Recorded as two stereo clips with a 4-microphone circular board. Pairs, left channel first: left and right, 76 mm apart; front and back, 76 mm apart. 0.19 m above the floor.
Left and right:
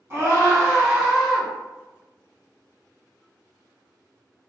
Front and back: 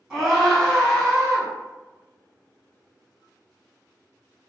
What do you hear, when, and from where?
0.1 s a scream: 90° right, 1.6 m; by 1.5 s 20° right, 1.5 m